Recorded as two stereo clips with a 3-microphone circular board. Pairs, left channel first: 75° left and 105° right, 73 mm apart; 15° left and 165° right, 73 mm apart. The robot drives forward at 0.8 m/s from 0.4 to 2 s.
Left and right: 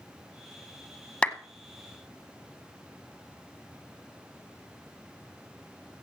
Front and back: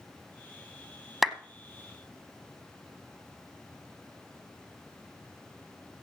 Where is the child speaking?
No child speaking in this recording.